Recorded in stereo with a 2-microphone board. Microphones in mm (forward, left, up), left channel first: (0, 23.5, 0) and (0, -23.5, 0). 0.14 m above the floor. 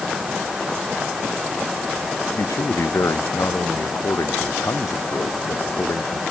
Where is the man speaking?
80° left.